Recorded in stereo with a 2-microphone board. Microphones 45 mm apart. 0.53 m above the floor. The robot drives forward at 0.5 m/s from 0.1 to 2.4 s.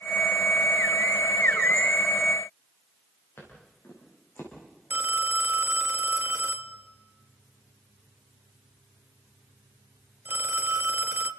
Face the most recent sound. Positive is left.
turn(degrees=-50)  # may be behind; listen again after turning